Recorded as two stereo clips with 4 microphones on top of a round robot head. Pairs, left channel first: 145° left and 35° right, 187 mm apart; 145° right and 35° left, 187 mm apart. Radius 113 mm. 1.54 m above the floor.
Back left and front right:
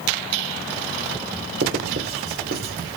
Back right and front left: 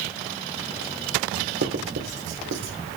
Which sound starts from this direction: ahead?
Writing, at 1.6 s.